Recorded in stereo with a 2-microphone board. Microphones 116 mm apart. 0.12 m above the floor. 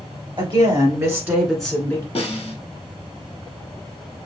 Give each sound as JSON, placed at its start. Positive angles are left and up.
{"t": 0.4, "sound": "a woman speaking", "side_deg": -45, "distance_m": 1.7}
{"t": 2.1, "sound": "a snare drum", "side_deg": 60, "distance_m": 1.2}